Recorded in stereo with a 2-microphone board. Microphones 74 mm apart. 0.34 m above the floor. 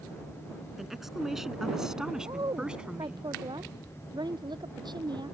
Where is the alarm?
No alarm in this recording.